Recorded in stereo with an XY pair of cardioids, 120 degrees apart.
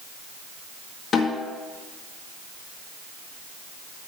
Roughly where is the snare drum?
Ahead left.